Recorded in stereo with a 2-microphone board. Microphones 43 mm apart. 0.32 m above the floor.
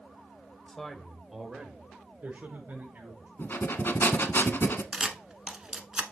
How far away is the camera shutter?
About 0.9 m.